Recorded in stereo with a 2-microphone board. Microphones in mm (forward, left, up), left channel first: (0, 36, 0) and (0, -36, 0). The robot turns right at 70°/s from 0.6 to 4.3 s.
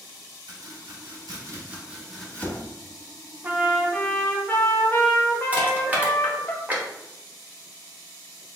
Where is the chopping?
75° right (ahead or behind), 0.9 m; by 2.6 s 35° left (ahead or behind), 0.9 m.